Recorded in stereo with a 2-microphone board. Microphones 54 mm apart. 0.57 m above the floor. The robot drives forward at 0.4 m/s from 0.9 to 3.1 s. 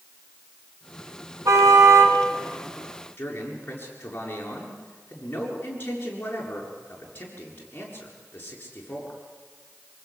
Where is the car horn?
85° right, 3 m.